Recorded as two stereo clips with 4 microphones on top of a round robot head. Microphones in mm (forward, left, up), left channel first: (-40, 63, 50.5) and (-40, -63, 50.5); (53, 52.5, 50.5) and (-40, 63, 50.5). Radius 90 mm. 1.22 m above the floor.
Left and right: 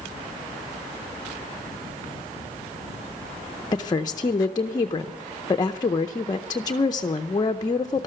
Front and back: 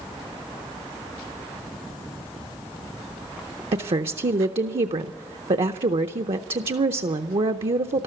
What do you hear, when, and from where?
3.7 s a woman speaking: 150° left, 0.7 m